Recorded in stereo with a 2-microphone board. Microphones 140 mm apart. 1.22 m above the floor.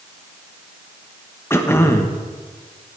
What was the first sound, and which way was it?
Throat clearing, 15° left (ahead or behind).